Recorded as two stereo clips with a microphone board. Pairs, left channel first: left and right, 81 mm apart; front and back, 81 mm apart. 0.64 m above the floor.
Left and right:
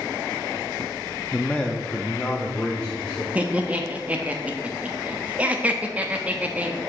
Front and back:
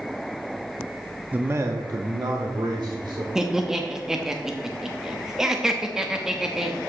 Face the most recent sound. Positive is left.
turn(degrees=-110)